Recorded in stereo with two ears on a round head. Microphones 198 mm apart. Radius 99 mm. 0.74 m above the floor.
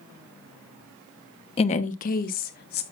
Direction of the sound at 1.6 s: 25° left (ahead or behind).